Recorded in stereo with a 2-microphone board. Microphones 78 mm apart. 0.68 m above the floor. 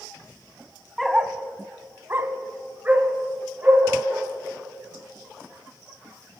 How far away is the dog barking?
About 1.1 m.